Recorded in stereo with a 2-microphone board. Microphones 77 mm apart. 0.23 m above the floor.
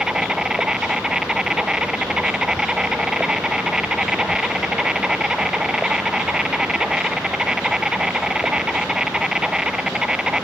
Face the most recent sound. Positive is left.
turn(degrees=-10)  # may be behind; listen again after turning